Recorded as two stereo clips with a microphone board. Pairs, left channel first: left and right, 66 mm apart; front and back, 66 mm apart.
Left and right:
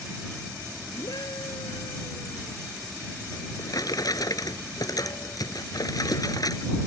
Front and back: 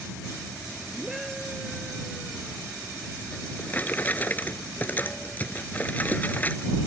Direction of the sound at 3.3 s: 65° left.